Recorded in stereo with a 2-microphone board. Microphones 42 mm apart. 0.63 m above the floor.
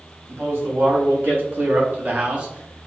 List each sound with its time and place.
0.3 s a man speaking: 65° right (ahead or behind), 1.8 m; by 2.9 s 10° right (ahead or behind), 0.8 m